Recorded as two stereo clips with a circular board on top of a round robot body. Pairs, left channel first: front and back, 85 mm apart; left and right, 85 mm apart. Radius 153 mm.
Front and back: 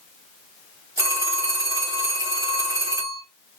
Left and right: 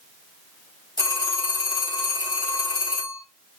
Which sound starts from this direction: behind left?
A phone ringing, at 1.0 s.